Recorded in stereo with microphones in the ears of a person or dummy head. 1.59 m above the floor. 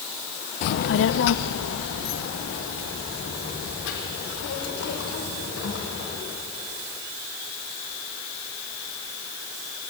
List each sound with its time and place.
0.6 s a child speaking: 50° left (ahead or behind), 0.5 m; by 6.1 s 75° left (ahead or behind), 7 m